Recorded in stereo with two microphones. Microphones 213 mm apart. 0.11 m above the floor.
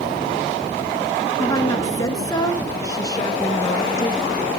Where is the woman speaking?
15° left (ahead or behind), 1.1 m.